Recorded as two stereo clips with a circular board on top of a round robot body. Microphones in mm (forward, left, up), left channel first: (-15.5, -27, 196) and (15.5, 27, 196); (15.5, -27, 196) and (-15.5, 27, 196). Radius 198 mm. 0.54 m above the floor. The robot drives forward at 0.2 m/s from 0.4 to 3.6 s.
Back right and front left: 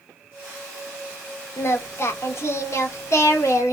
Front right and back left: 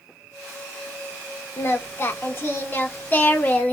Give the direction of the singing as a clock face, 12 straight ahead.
3 o'clock.